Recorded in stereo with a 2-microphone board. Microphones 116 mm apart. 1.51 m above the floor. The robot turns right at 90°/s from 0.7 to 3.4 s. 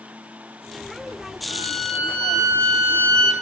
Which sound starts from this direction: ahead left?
A violin, at 1.5 s.